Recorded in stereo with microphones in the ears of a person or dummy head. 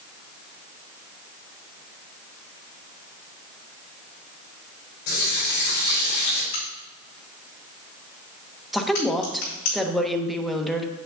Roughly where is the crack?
Left.